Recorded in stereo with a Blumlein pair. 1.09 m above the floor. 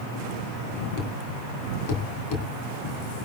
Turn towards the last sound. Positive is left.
turn(degrees=45)